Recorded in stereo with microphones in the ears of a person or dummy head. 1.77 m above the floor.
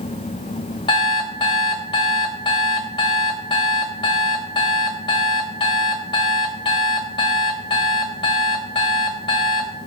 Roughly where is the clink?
I don't hear a clink.